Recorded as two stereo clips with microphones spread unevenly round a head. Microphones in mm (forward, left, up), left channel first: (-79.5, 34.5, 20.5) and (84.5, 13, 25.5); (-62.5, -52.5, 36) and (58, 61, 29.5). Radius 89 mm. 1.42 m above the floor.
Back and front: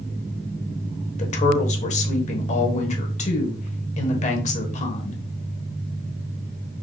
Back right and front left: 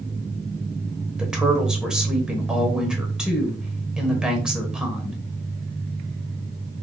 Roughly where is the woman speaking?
Behind left.